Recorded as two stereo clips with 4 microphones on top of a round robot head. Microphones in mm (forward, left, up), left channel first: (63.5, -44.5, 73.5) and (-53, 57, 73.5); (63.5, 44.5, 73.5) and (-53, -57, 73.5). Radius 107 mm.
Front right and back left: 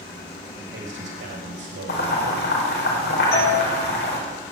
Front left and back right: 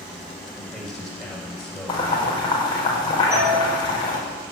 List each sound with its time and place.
0.6 s a man speaking: 130° left, 5 m
1.9 s boiling: 25° right, 4.5 m
3.3 s a doorbell: 65° right, 5.5 m